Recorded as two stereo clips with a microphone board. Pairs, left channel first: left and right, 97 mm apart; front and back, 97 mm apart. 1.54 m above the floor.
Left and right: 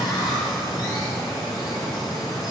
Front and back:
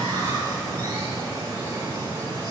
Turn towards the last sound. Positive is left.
turn(degrees=130)